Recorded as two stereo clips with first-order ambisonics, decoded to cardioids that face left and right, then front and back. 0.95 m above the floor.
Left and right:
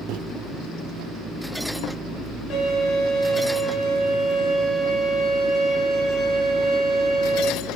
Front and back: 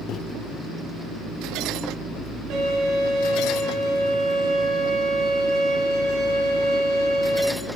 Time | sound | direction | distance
0.1 | a microwave | 50° right | 0.7 m
2.5 | a violin | 140° left | 5.5 m